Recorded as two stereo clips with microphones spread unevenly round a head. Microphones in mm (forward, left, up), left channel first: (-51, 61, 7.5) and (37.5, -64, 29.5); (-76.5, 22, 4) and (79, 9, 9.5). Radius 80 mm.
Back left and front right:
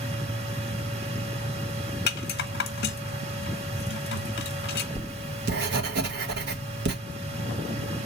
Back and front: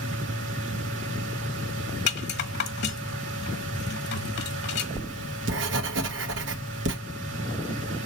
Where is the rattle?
150° left, 1.2 m.